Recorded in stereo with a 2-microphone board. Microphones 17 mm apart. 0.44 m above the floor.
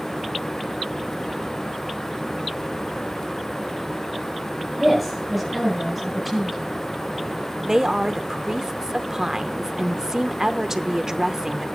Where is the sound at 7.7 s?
30° right (ahead or behind), 0.8 m.